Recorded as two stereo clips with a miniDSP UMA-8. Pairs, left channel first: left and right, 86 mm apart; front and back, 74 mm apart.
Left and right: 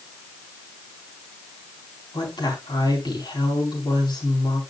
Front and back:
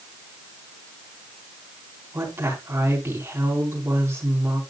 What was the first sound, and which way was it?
A woman speaking, 125° left.